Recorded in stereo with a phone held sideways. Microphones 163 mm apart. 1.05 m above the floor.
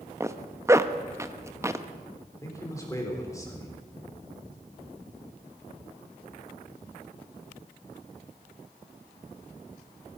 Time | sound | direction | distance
0.2 | a zipper | 20° right (ahead or behind) | 0.6 m
2.4 | a man speaking | 20° left (ahead or behind) | 3.5 m